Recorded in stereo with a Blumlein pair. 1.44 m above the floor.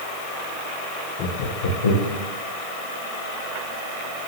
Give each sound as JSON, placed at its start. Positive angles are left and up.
{"t": 1.2, "sound": "laughter", "azimuth_deg": 40, "distance_m": 0.9}